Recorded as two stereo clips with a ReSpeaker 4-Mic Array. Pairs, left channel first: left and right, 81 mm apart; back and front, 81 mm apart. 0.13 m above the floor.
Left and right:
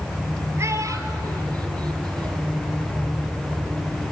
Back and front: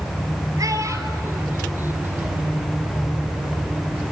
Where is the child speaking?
40° right, 1.9 m; by 2.5 s 70° right, 3 m.